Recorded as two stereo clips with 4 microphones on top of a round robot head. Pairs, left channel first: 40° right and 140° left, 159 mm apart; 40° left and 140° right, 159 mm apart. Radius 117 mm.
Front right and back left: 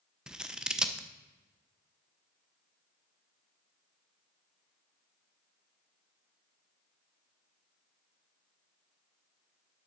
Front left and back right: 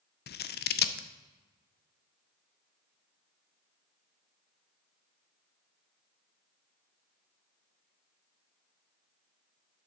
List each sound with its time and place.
0.3 s scissors: 55° left, 0.6 m